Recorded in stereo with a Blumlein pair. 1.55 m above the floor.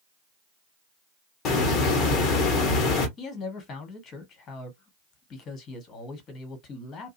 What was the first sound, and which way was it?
A hiss, 35° left.